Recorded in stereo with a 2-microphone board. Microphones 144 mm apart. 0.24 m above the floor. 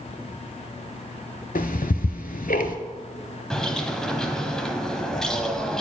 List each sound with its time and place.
1.6 s ticking: 80° left, 0.6 m
3.5 s a bird: 5° left (ahead or behind), 0.8 m